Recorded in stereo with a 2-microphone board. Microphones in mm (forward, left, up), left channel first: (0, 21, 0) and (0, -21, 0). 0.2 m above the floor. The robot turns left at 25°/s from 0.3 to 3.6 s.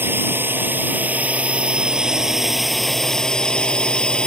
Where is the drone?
115° right; by 4.3 s 160° left.